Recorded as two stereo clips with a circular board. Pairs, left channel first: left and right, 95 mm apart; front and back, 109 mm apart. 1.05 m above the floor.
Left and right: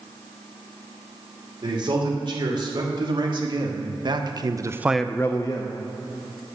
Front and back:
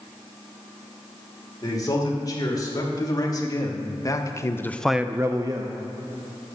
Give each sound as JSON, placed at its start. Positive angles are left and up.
{"t": 1.6, "sound": "a man speaking", "azimuth_deg": -55, "distance_m": 3.5}